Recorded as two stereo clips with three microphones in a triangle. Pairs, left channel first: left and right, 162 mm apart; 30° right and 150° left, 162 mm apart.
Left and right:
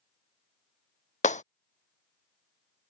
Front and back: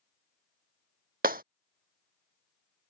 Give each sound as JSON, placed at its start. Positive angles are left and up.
{"t": 1.2, "sound": "breaking glass", "azimuth_deg": 130}